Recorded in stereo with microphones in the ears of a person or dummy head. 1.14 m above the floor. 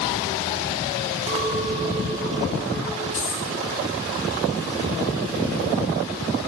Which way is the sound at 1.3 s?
30° right (ahead or behind).